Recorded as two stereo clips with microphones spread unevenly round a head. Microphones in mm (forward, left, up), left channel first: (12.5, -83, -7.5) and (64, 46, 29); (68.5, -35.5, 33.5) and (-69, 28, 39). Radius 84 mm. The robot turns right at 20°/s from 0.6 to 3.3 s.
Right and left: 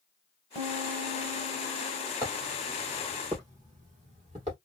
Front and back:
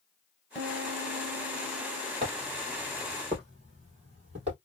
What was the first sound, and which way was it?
A piano, 70° left.